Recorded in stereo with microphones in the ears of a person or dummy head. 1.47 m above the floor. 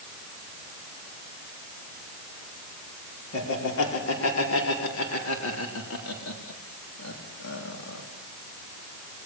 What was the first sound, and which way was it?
Laughter, 80° left.